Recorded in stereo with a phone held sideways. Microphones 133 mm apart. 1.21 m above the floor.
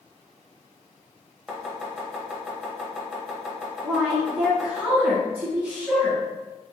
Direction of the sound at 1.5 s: 5° right (ahead or behind).